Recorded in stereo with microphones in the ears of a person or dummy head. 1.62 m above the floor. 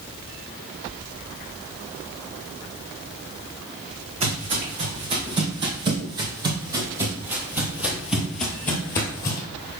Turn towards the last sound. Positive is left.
turn(degrees=20)  # may be behind; listen again after turning